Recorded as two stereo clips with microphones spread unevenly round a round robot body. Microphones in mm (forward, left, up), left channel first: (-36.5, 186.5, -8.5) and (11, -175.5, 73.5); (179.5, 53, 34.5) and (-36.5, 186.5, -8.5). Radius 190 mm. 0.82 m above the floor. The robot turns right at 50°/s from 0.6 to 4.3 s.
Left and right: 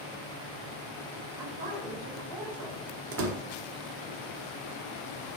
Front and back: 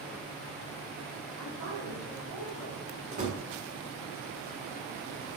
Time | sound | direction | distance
1.4 | a woman speaking | 165° right | 3.5 m
3.1 | a door slam | 145° right | 1.2 m